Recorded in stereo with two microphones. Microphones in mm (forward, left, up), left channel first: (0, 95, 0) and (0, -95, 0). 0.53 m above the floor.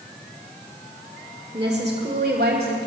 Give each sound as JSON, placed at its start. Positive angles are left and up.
{"t": 1.5, "sound": "a woman speaking", "side_deg": -25, "distance_m": 1.7}